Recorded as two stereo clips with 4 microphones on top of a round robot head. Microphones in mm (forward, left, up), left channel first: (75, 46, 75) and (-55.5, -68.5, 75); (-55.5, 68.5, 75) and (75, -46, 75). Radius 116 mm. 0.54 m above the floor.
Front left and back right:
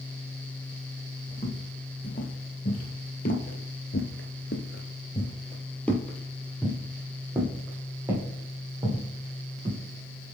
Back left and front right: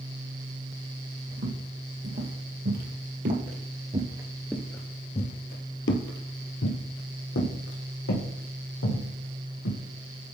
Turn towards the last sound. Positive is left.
turn(degrees=150)